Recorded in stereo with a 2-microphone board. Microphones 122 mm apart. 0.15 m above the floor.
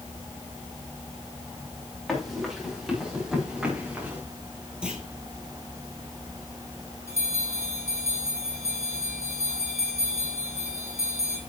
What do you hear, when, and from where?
2.1 s running footsteps: 5° left (ahead or behind), 6 m; by 4.2 s 15° right (ahead or behind), 4 m
4.8 s a clunk: 5° right (ahead or behind), 3 m
7.1 s a bell: 25° left (ahead or behind), 4 m